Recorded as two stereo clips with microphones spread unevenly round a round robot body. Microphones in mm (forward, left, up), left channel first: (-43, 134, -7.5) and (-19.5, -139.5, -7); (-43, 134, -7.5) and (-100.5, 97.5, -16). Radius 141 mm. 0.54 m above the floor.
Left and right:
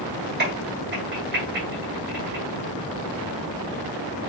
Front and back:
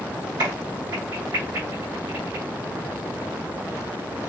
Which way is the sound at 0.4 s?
135° right.